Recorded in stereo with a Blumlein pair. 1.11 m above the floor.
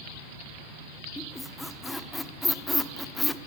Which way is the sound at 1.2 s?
5° left.